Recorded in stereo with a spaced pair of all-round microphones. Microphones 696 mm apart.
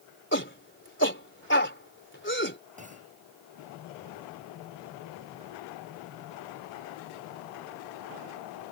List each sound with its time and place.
0.3 s a shout: 15° left (ahead or behind)
2.8 s a clunk: 10° right (ahead or behind)